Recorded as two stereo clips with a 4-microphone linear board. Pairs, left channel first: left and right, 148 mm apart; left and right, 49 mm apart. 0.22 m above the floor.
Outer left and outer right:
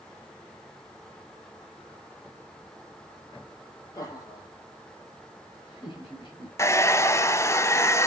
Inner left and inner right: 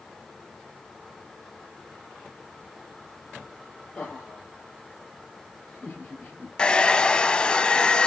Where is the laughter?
25° left (ahead or behind), 5 m; by 6.5 s 35° left (ahead or behind), 5.5 m.